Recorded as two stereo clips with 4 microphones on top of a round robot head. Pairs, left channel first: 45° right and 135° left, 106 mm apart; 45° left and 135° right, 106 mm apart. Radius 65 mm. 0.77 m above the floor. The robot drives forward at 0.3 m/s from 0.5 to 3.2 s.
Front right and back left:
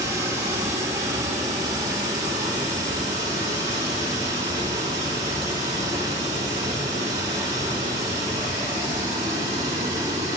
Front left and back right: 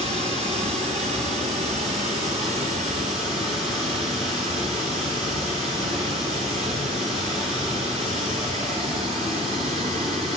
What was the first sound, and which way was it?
Running water, 165° right.